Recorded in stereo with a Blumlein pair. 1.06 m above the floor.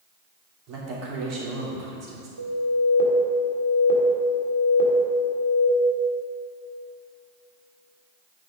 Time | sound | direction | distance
0.7 | a woman speaking | 35° right | 3 m
2.4 | an alarm | 70° right | 1.8 m